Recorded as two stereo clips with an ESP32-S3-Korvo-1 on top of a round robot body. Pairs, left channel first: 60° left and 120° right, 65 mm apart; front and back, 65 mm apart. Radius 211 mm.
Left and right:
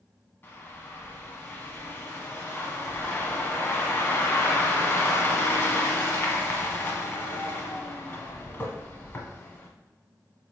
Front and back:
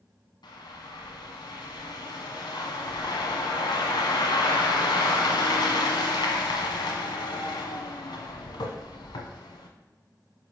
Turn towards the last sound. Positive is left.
turn(degrees=0)